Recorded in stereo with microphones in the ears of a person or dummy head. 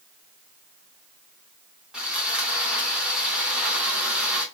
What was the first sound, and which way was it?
Sawing, centre (ahead or behind).